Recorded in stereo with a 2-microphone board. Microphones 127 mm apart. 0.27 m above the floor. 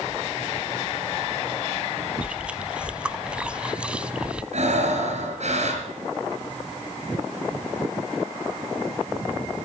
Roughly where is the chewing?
Centre.